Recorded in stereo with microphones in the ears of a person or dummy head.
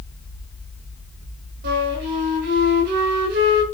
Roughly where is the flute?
Right.